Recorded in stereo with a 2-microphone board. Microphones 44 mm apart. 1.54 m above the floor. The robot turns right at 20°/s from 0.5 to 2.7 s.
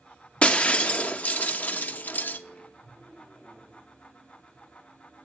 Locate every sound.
0.4 s breaking glass: 40° left, 1.0 m; by 2.4 s 80° left, 1.0 m